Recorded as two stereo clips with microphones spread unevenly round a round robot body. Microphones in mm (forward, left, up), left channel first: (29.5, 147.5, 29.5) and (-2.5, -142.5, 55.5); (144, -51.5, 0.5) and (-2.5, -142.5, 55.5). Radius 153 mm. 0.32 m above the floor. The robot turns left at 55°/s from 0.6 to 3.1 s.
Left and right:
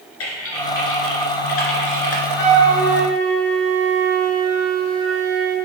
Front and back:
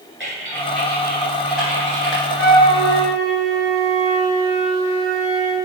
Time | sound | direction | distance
0.2 | typing on a keyboard | 130° left | 1.7 m
2.4 | a flute | 70° left | 2.5 m